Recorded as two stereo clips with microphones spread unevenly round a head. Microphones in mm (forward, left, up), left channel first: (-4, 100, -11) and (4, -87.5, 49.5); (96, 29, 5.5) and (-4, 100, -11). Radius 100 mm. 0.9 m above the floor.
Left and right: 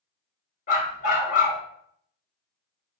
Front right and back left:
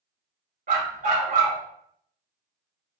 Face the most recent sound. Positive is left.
turn(degrees=150)